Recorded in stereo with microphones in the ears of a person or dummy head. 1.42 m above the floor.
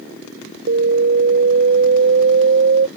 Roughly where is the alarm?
Right.